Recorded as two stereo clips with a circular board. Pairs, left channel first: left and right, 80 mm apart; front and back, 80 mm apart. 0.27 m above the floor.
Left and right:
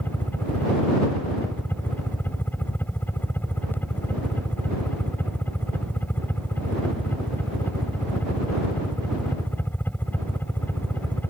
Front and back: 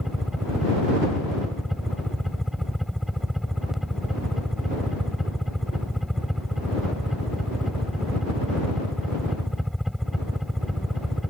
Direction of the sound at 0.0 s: 95° left.